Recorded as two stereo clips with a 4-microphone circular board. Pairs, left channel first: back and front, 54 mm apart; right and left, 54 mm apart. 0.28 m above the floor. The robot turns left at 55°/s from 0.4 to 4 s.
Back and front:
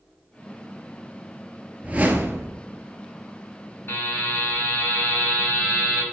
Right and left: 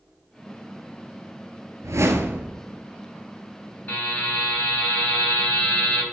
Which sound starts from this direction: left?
A whoosh, at 1.8 s.